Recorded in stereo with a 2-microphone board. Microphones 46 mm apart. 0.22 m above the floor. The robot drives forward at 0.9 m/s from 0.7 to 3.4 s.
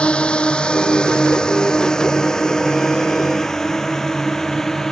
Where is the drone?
20° left (ahead or behind); by 4.9 s 10° left (ahead or behind).